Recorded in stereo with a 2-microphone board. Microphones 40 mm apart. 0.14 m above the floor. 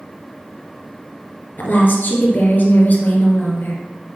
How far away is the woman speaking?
About 2.5 m.